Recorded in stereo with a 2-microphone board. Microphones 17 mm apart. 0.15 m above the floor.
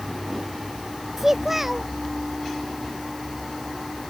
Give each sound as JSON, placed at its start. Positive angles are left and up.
{"t": 1.2, "sound": "a child speaking", "side_deg": -20}